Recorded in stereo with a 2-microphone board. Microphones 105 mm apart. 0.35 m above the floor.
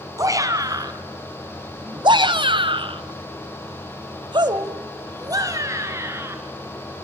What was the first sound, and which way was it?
A shout, 35° right (ahead or behind).